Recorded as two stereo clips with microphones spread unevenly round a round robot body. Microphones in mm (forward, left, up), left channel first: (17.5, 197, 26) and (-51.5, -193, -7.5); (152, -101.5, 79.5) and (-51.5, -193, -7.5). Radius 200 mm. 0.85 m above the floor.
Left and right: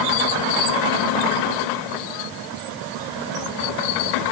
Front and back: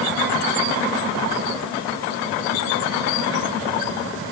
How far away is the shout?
No shout in this recording.